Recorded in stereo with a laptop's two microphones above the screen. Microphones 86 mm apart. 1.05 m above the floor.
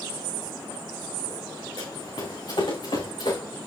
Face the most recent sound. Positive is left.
turn(degrees=70)  # may be behind; listen again after turning